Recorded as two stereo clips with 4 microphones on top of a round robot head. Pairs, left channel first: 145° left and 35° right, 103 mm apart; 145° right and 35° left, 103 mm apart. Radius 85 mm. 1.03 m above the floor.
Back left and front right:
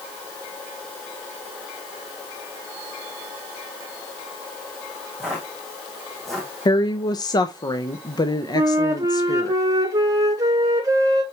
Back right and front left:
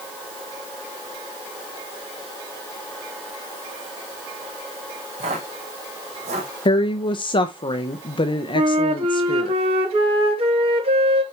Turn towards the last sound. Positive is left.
turn(degrees=20)